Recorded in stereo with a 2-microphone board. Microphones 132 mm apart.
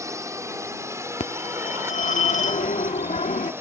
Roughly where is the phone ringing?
Left.